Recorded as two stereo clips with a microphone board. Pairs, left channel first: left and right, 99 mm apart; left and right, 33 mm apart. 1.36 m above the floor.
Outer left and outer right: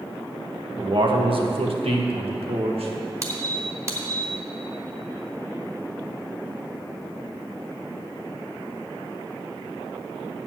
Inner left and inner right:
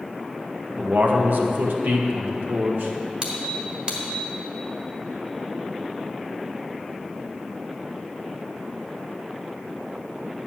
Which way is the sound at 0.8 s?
50° right (ahead or behind).